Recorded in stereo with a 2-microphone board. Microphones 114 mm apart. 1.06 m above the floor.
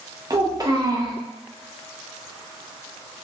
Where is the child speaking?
35° right (ahead or behind), 0.6 m.